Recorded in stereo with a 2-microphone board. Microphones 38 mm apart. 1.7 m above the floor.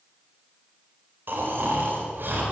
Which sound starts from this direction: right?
Snoring, at 1.3 s.